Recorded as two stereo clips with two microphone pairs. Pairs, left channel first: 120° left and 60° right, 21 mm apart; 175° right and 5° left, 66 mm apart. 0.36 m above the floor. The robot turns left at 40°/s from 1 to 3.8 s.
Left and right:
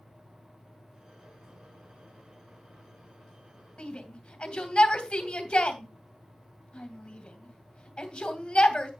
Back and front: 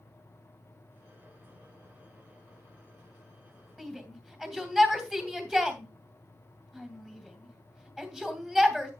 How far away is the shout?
About 2.5 m.